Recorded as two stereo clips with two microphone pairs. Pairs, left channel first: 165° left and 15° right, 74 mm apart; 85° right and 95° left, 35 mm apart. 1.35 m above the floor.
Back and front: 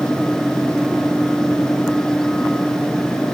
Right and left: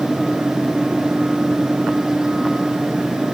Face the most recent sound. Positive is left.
No sound to turn to.